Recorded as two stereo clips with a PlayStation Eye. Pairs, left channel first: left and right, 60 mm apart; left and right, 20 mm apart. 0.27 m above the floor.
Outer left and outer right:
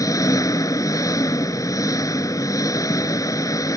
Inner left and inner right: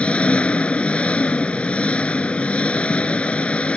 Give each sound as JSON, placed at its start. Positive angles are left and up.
{"t": 0.0, "sound": "an engine running", "side_deg": 70}